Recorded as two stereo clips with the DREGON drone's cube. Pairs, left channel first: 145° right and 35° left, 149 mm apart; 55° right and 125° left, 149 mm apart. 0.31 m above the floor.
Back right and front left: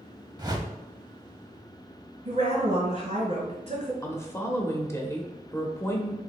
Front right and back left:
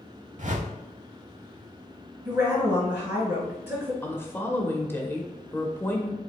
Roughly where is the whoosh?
Left.